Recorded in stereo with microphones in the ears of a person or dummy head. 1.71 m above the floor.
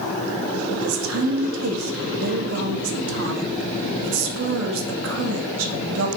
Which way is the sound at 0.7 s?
75° right (ahead or behind).